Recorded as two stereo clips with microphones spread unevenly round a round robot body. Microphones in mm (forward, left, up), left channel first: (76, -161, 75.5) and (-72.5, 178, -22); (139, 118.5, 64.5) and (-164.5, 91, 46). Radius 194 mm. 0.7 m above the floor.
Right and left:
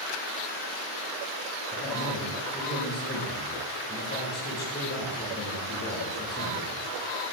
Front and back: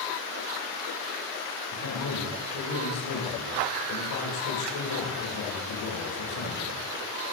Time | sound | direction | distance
1.7 | a man speaking | straight ahead | 7 m